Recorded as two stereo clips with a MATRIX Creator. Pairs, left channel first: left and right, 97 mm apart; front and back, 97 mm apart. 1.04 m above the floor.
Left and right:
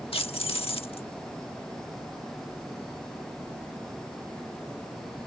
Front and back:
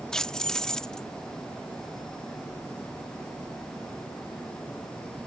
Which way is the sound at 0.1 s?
85° left.